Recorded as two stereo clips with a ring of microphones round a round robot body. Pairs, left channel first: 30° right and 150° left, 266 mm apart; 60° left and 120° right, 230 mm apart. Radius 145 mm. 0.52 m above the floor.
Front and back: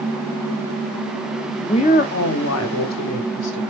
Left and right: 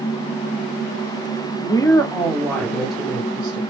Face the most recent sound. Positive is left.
turn(degrees=-35)